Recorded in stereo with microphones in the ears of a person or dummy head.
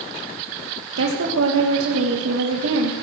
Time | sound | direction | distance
1.0 | a woman speaking | 85° right | 1.7 m